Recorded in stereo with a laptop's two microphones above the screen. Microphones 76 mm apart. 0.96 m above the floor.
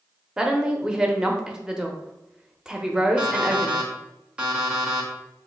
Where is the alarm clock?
15° right (ahead or behind), 0.7 m.